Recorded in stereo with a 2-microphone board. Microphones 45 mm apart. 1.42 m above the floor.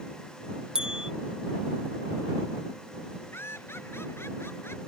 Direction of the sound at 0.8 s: 15° right (ahead or behind).